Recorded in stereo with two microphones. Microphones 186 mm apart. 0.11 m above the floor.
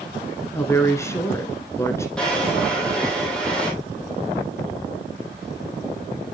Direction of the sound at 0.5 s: 15° left (ahead or behind).